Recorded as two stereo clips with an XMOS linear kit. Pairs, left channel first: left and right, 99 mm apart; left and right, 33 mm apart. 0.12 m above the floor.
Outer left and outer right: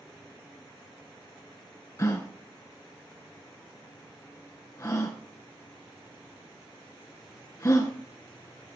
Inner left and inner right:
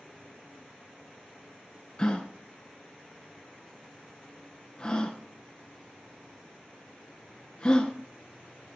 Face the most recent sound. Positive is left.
turn(degrees=30)  # may be behind; listen again after turning